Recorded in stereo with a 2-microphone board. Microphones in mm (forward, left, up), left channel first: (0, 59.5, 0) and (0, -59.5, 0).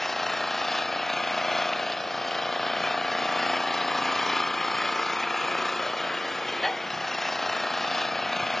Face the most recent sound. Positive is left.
turn(degrees=0)  # may be behind; listen again after turning